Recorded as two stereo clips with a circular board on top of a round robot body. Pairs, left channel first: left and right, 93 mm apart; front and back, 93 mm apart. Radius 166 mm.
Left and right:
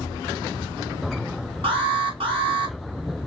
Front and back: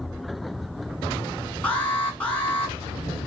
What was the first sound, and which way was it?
An alarm, 75° right.